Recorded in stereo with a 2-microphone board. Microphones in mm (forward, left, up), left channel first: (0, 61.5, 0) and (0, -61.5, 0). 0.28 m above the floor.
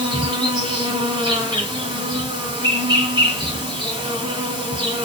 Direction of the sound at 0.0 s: 40° right (ahead or behind).